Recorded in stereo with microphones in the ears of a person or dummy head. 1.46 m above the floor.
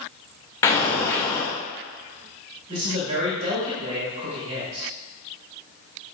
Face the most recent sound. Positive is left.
turn(degrees=-35)  # may be behind; listen again after turning